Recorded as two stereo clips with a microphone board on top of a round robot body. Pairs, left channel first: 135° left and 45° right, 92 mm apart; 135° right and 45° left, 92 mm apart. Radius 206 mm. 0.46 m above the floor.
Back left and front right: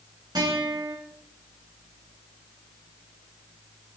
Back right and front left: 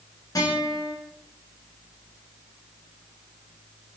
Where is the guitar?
85° right, 9.5 m.